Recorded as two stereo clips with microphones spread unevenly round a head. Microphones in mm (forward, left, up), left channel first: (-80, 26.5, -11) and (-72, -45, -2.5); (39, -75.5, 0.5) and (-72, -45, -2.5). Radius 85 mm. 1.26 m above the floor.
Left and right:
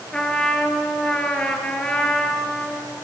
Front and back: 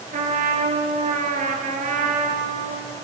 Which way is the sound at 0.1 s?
175° left.